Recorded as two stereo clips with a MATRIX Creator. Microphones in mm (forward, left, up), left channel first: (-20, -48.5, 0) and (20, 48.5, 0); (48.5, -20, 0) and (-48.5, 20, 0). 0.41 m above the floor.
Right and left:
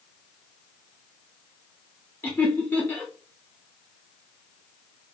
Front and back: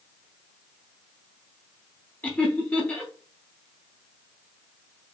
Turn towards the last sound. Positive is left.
turn(degrees=-70)